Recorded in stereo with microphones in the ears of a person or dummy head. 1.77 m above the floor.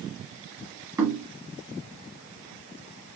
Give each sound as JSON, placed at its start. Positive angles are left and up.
{"t": 1.0, "sound": "knocking", "side_deg": -15, "distance_m": 1.1}